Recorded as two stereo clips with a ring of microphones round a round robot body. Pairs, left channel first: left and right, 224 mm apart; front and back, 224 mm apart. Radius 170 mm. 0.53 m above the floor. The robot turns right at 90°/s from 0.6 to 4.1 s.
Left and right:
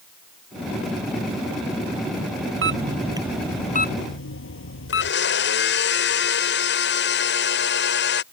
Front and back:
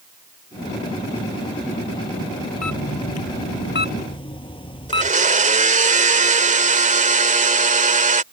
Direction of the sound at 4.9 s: 125° left.